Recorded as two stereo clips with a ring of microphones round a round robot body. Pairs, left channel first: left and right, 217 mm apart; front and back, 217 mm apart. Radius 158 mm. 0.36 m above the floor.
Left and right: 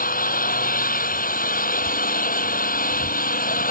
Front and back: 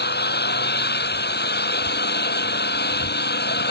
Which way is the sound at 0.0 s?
40° left.